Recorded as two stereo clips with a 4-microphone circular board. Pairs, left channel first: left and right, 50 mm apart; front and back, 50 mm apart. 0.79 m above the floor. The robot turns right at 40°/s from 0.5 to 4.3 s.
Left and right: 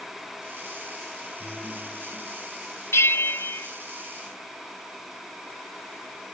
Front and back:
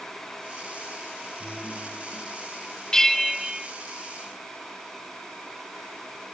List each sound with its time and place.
1.4 s a guitar: 120° right, 8 m; by 2.3 s 85° right, 8 m
2.9 s a bell: 75° left, 0.6 m; by 3.7 s 105° left, 0.6 m